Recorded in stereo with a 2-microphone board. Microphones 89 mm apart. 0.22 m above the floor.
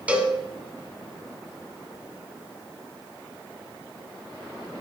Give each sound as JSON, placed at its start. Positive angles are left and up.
{"t": 0.1, "sound": "a cowbell", "side_deg": -15, "distance_m": 1.6}